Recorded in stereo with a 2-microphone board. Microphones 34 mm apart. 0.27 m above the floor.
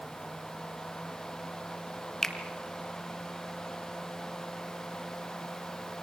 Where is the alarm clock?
No alarm clock in this recording.